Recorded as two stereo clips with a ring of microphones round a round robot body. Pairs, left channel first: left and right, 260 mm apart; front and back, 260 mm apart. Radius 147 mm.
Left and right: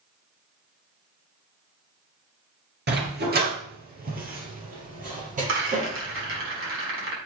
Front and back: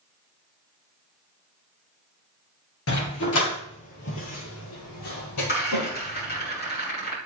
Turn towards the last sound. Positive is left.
turn(degrees=-55)